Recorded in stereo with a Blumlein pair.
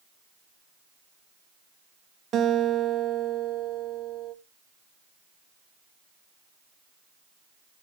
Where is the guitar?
30° right, 1.8 m.